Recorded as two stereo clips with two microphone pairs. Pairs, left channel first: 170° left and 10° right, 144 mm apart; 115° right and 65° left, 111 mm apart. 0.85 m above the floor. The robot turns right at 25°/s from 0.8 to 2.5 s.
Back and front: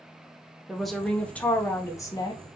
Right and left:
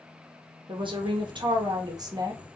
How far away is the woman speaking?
About 0.6 m.